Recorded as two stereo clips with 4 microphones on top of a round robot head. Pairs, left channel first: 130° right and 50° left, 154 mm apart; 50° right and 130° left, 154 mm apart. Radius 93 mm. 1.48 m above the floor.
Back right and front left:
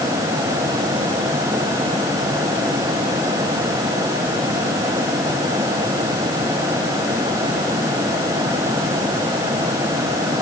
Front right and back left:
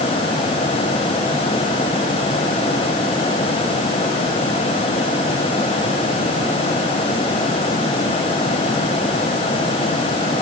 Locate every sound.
Only background noise.